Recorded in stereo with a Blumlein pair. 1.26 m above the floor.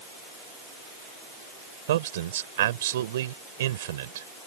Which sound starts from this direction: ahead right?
A man speaking, at 1.9 s.